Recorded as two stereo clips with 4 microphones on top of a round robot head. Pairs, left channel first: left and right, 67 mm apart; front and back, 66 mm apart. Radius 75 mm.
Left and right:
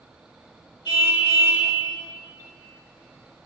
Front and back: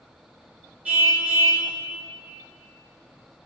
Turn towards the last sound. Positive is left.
turn(degrees=115)